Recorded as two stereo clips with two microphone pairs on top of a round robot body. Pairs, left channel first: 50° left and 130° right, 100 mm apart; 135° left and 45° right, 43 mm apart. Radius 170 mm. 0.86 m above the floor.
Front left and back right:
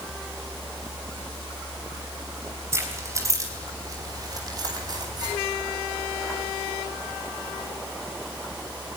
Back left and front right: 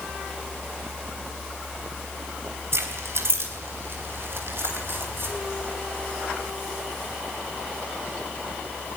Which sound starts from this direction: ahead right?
Keys jangling, at 2.7 s.